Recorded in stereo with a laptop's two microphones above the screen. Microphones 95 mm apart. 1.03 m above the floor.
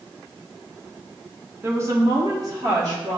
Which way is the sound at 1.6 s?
25° right (ahead or behind).